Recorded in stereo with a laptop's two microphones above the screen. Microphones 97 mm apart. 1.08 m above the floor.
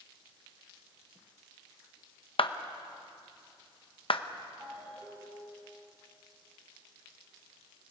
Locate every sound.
2.4 s a clap: 65° left (ahead or behind), 0.8 m
4.6 s a ringtone: 30° right (ahead or behind), 6.5 m